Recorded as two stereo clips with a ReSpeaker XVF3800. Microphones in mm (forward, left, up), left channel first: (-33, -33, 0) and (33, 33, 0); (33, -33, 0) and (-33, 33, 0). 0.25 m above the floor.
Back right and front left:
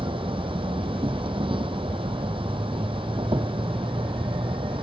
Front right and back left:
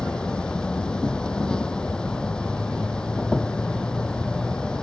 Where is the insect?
35° left.